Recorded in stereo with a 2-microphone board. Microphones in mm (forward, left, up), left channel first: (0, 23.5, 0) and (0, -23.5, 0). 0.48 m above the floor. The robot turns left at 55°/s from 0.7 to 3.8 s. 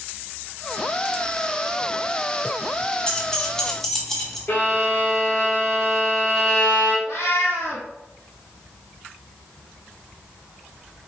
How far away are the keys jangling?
About 0.6 m.